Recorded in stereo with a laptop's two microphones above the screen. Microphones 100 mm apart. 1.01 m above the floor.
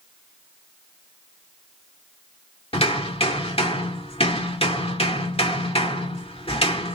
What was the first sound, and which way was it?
Hammering, 70° left (ahead or behind).